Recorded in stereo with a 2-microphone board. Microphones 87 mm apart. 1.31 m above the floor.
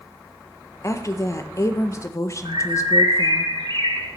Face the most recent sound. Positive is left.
turn(degrees=-75)  # may be behind; listen again after turning